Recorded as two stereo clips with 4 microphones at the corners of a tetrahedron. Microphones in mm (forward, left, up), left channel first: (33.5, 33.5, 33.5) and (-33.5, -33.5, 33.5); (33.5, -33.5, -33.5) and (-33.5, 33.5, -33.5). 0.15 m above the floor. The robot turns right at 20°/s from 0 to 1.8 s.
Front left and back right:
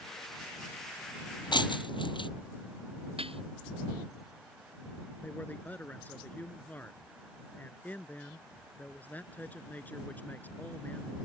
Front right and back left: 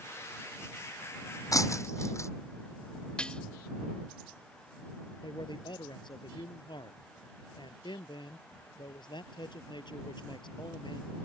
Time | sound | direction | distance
1.5 | breaking glass | 10° left | ?
3.2 | dishes clattering | 125° right | ?
5.2 | a man speaking | 25° right | ?